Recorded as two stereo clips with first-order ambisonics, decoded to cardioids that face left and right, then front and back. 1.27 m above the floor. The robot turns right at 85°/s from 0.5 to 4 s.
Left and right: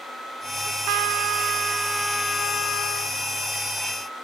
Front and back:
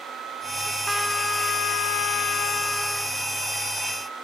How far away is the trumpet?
About 1.1 m.